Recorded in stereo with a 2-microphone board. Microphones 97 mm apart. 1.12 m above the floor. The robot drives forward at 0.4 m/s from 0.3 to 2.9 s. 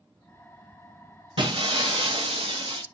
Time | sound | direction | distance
1.4 | breaking glass | 60° right (ahead or behind) | 0.7 m